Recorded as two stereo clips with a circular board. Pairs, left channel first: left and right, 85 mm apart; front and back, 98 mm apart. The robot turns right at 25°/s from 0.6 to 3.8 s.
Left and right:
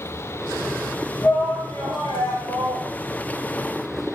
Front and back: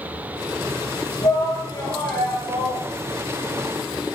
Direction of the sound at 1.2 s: 50° left.